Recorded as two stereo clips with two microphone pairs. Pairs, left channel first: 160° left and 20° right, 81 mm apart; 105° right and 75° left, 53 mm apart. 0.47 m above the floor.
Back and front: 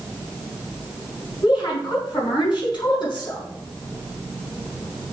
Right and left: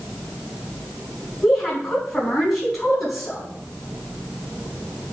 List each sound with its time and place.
1.4 s a woman speaking: 165° left, 4.5 m